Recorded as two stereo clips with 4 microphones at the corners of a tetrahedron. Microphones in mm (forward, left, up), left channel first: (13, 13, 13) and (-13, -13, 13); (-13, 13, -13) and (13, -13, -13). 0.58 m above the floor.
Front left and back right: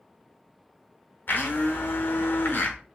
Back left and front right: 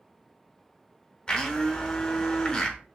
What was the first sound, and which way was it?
A blender, 65° left.